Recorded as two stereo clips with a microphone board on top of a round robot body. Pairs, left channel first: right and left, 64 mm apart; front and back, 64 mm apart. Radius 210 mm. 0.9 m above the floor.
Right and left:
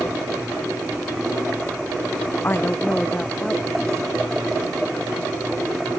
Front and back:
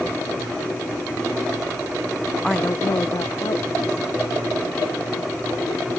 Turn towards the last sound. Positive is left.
turn(degrees=0)